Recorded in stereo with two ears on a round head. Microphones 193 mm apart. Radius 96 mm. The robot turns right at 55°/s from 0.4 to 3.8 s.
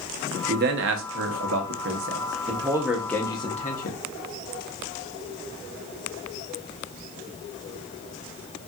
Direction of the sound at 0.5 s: 40° right (ahead or behind).